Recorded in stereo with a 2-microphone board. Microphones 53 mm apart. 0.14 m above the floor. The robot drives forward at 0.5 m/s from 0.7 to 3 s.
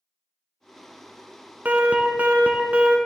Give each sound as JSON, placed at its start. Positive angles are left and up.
{"t": 1.6, "sound": "an alarm", "side_deg": -35, "distance_m": 0.9}